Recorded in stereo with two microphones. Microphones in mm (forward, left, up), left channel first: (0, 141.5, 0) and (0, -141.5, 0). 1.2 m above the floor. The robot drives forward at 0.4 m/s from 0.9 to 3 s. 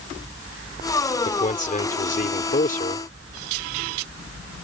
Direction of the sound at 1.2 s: 25° left (ahead or behind).